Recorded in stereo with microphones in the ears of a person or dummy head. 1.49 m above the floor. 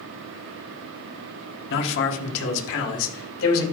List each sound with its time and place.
1.7 s a man speaking: 65° left (ahead or behind), 1.3 m; by 3.6 s 80° left, 2.5 m